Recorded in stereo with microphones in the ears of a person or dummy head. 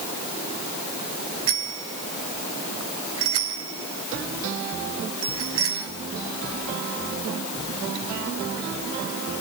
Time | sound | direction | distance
1.5 | a bicycle bell | 85° right | 3 m